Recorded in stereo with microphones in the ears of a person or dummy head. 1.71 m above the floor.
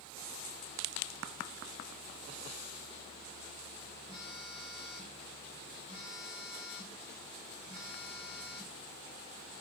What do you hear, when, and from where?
4.1 s a phone buzzing: 35° left (ahead or behind), 1.8 m